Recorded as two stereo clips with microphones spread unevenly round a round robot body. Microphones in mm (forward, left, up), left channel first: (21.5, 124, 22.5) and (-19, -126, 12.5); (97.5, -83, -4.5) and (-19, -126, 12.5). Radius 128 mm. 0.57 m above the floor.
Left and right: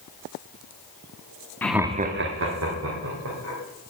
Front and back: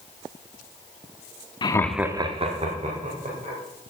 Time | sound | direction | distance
1.6 | laughter | straight ahead | 0.8 m